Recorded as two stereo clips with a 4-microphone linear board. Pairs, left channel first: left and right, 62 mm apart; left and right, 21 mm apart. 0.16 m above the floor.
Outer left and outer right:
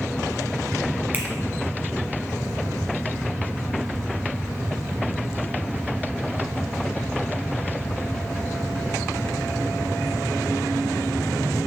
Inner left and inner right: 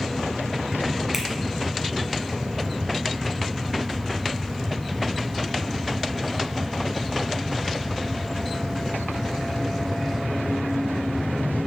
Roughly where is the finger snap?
Right.